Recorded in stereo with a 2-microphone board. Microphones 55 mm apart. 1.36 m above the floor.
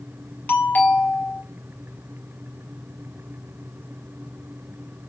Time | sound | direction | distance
0.5 | a doorbell | 35° left (ahead or behind) | 0.9 m